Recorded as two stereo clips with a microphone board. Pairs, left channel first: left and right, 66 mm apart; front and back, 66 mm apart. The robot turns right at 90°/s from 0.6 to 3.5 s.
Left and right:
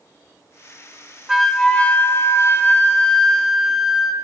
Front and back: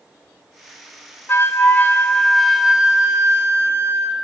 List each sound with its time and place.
1.3 s a flute: 10° right, 0.8 m; by 4.1 s 175° right, 0.8 m